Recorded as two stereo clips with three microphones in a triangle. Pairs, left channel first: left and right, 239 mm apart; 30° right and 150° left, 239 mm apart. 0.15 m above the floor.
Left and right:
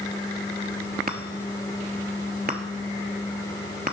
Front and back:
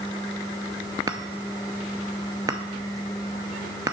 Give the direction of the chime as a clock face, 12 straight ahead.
4 o'clock.